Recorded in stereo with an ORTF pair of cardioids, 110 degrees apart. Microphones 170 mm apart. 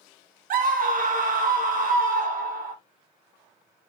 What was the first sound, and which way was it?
A scream, 55° right.